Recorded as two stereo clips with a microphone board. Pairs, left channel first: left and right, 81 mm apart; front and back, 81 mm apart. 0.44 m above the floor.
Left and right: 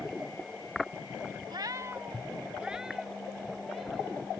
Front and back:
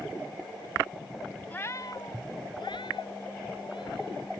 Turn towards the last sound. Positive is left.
turn(degrees=0)